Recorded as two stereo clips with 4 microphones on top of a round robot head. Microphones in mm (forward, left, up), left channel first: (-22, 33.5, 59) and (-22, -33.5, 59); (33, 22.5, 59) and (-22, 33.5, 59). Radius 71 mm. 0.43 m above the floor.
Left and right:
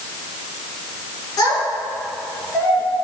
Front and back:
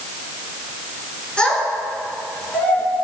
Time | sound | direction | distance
1.4 | a child speaking | 60° left | 6 m